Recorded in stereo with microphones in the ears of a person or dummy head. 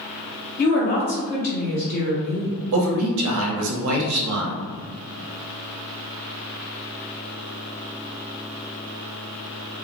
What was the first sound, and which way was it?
A woman speaking, 50° left (ahead or behind).